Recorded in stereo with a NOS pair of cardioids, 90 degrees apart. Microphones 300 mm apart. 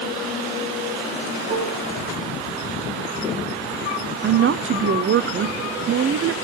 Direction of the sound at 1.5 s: 20° right.